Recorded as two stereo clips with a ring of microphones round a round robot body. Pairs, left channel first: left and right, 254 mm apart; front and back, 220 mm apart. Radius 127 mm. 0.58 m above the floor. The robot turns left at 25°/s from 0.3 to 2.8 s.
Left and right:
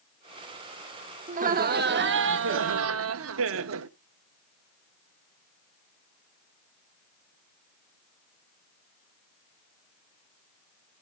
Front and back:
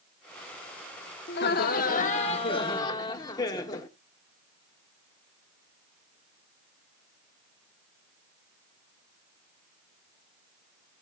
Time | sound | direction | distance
1.3 | laughter | 35° right | 0.9 m